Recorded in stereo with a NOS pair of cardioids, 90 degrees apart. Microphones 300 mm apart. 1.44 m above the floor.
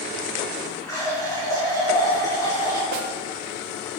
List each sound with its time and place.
0.9 s a running tap: 10° left, 1.9 m
2.9 s a snare drum: 65° right, 0.6 m